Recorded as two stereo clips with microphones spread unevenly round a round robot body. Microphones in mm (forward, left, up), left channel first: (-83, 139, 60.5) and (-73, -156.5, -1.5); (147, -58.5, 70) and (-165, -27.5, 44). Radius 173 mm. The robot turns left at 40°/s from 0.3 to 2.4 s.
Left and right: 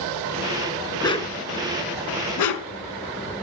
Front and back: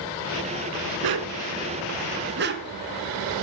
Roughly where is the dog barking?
Behind.